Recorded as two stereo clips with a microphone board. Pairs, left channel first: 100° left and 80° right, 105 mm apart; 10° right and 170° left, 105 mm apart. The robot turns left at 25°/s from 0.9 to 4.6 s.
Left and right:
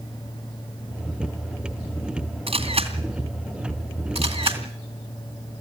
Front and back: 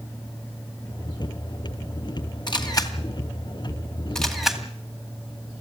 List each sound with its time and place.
2.5 s a camera shutter: 55° right, 2.5 m; by 4.6 s 105° right, 2.5 m